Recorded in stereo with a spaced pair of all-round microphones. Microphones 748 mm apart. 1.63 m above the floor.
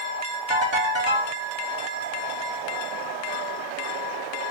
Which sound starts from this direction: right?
A ringtone, at 0.5 s.